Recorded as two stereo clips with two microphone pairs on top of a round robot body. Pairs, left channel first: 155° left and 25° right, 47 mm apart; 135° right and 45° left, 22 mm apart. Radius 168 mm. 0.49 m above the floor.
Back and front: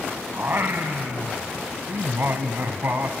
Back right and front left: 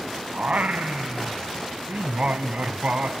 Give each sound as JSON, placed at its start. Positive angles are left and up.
{"t": 0.3, "sound": "singing", "azimuth_deg": 20, "distance_m": 0.8}